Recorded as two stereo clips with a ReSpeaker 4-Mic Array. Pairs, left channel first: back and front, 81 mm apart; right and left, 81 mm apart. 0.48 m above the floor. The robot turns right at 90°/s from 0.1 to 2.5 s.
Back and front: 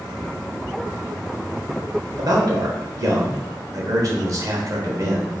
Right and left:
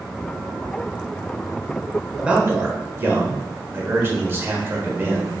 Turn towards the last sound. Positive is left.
turn(degrees=35)